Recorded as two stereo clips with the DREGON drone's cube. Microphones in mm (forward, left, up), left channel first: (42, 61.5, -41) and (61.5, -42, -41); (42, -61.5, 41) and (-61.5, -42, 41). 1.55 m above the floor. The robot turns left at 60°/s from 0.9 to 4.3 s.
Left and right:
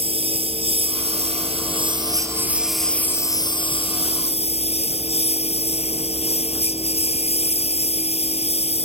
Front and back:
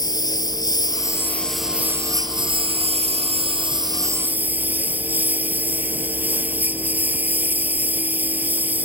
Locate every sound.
0.0 s a lawn mower: 60° right; by 8.9 s 95° left